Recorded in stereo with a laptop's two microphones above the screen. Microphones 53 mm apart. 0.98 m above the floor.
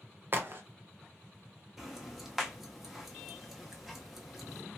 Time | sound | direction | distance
0.3 | a crack | 40° right (ahead or behind) | 0.6 m
1.8 | ticking | centre (ahead or behind) | 0.9 m